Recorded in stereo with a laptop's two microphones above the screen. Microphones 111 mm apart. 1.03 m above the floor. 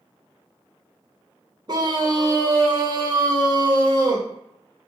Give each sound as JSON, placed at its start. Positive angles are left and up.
{"t": 1.7, "sound": "a scream", "side_deg": -40, "distance_m": 1.0}